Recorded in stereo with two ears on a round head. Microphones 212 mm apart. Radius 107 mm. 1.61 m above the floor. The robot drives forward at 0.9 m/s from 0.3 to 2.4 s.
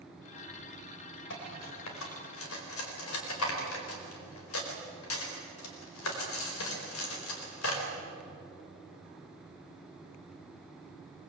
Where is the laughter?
No laughter in this recording.